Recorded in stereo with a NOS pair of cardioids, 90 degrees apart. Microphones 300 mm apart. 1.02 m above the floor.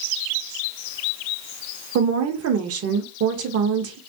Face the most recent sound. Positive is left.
turn(degrees=-55)